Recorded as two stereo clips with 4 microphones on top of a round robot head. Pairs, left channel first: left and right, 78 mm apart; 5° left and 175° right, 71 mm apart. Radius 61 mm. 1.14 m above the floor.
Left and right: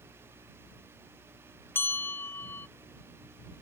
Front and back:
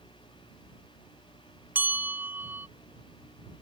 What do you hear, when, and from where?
1.8 s a bell: 140° left